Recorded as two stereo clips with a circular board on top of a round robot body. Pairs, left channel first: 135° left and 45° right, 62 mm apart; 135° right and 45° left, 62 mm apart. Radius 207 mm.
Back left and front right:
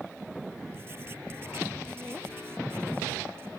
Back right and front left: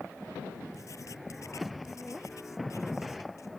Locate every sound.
0.7 s writing: 100° right